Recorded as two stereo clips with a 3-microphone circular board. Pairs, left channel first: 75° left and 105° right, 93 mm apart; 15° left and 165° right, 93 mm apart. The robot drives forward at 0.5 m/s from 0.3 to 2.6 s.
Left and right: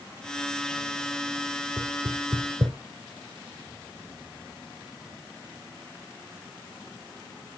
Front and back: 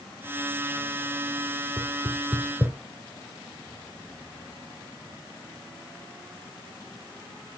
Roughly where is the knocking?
Right.